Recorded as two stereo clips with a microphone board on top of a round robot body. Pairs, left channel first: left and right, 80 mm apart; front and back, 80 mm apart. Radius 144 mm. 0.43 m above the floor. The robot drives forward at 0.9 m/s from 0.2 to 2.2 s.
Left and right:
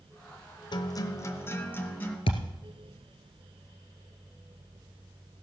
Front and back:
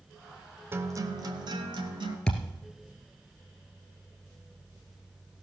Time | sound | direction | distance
0.7 | a guitar | 120° left | 0.6 m
2.3 | a thud | 85° left | 1.6 m